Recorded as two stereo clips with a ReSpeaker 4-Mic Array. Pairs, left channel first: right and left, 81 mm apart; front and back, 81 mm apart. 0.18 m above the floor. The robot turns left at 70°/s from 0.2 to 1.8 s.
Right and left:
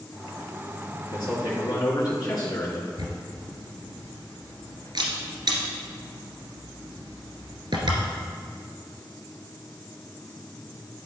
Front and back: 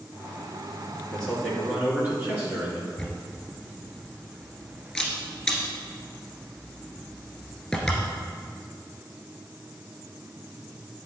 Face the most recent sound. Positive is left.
turn(degrees=85)